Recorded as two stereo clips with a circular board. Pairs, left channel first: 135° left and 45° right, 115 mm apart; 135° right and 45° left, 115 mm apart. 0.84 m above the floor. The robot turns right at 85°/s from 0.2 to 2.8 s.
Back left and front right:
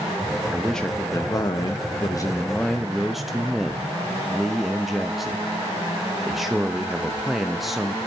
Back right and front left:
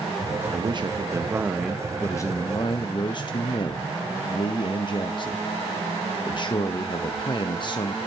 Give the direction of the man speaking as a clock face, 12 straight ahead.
11 o'clock.